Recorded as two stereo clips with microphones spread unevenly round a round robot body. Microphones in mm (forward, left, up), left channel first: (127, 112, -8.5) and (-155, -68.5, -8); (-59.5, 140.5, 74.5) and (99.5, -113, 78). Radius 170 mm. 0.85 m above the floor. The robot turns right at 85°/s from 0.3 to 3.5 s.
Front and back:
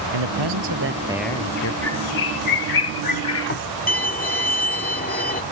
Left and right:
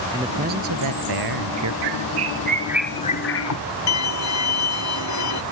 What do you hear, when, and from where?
0.1 s a man speaking: 135° right; by 1.7 s 15° right
1.8 s a bird: 55° right; by 3.7 s 90° left
3.9 s a violin: 95° left